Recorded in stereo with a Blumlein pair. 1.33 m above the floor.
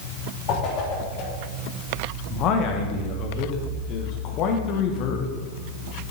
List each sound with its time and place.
0.5 s a whoosh: 35° left, 3 m
2.3 s a man speaking: 35° left, 1.3 m